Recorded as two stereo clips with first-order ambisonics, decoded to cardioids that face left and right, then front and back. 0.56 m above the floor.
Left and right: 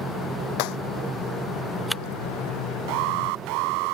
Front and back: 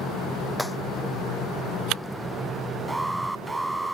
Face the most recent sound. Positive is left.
turn(degrees=-95)